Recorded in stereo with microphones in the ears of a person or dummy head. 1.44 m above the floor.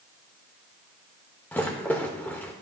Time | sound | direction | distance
1.5 | a rattle | 10° left (ahead or behind) | 1.3 m